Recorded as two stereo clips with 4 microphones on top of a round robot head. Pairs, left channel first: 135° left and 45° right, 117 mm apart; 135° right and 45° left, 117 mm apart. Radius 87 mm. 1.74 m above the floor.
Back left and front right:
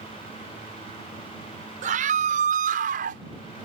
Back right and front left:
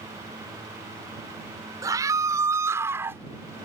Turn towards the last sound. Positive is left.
turn(degrees=-30)